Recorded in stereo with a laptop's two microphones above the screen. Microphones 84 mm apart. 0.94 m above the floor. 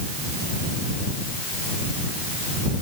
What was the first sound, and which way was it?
Only background noise.